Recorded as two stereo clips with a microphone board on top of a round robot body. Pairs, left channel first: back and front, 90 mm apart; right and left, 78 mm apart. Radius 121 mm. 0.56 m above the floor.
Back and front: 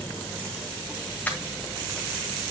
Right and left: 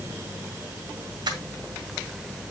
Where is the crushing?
110° left, 1.8 m.